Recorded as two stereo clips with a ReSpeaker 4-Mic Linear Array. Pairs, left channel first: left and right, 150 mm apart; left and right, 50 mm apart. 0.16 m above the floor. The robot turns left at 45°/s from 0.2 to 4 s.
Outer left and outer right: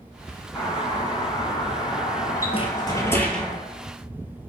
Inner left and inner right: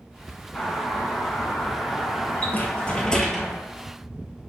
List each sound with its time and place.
0.6 s a doorbell: 20° left (ahead or behind), 1.6 m; by 3.5 s centre (ahead or behind), 1.6 m
2.5 s a rattle: 45° left, 1.0 m; by 3.6 s 5° right, 1.0 m